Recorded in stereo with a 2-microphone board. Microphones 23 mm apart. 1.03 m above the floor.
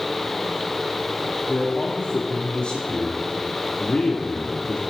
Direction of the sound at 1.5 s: 50° left (ahead or behind).